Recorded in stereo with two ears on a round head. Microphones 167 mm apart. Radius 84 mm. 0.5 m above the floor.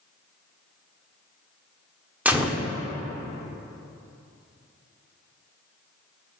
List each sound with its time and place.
2.2 s a gunshot: 10° right (ahead or behind), 0.9 m